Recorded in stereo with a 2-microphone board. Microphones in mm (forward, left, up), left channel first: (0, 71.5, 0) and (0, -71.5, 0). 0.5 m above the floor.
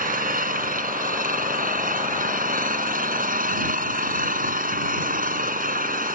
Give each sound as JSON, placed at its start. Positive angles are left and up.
{"t": 0.0, "sound": "an engine running", "side_deg": -70}